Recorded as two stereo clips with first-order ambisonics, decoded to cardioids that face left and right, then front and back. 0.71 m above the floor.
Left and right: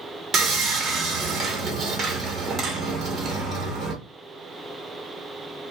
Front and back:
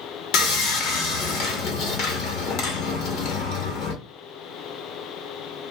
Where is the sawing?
25° right, 1.0 m.